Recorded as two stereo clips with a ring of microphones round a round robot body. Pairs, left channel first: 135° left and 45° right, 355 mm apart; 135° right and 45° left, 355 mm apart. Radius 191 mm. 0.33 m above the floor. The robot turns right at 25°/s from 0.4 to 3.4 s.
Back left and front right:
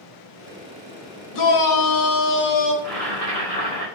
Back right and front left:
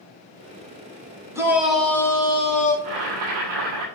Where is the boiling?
50° left, 5.5 m; by 3.9 s 60° left, 5.5 m.